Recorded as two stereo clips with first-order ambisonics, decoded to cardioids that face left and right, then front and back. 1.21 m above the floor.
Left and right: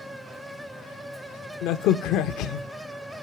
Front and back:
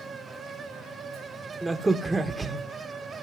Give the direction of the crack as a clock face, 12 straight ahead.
9 o'clock.